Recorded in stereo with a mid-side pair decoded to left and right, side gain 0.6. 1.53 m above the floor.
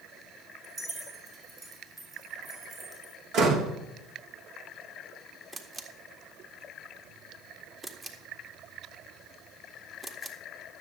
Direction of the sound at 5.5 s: 20° right.